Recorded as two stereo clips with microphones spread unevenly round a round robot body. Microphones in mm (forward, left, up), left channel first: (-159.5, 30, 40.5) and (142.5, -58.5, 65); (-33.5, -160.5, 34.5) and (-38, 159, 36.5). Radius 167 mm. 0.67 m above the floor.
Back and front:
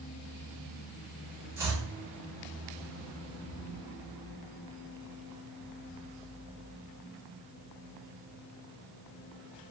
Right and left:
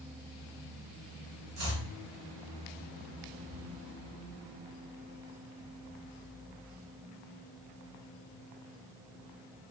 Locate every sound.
1.6 s chopping: 70° left, 0.9 m